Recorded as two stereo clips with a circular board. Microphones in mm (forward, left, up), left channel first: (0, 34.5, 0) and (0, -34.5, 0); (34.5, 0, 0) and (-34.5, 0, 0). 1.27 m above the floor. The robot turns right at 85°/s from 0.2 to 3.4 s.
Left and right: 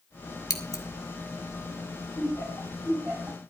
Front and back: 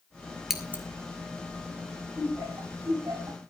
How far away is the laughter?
About 8 m.